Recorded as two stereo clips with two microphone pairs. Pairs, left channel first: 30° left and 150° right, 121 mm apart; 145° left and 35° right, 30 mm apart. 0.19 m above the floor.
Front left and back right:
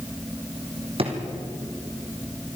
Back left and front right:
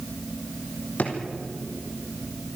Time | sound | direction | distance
1.0 | a drawer | 170° left | 3.5 m